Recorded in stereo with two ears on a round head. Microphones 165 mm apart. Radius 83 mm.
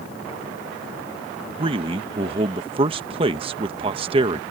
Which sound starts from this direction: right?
A man speaking, at 1.6 s.